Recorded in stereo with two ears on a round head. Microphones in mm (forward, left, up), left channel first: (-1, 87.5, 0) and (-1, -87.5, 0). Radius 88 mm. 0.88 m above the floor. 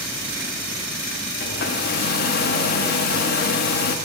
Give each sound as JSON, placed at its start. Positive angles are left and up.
{"t": 1.4, "sound": "a hair dryer", "side_deg": 50, "distance_m": 0.5}